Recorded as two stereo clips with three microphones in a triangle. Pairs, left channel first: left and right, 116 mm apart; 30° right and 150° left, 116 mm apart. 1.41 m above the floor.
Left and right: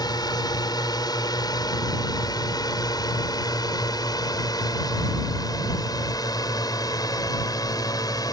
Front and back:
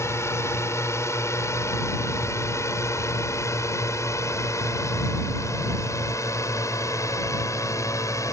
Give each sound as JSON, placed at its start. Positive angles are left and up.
{"t": 0.0, "sound": "a drone", "azimuth_deg": 35}